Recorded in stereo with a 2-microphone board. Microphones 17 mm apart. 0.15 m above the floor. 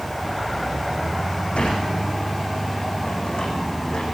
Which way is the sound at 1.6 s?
80° left.